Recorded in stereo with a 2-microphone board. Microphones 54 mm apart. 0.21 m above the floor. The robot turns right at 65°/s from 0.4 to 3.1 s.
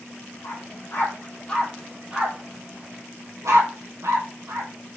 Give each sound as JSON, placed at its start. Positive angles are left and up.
{"t": 0.4, "sound": "a dog barking", "side_deg": 85, "distance_m": 2.5}